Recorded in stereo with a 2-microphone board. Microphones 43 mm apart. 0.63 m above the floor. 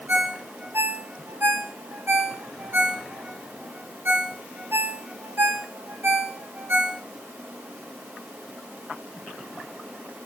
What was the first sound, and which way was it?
A ringtone, 70° right (ahead or behind).